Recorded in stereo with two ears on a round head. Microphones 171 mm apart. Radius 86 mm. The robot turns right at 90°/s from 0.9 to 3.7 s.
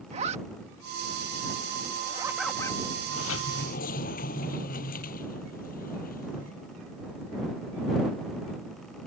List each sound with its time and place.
0.1 s a zipper: 35° right (ahead or behind); by 2.8 s 30° left (ahead or behind)
3.1 s a sliding door: 75° left; by 6.5 s 130° left